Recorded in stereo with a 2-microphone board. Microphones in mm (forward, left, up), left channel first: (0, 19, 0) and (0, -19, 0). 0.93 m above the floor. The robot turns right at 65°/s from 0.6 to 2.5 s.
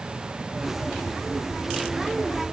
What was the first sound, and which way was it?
Only background noise.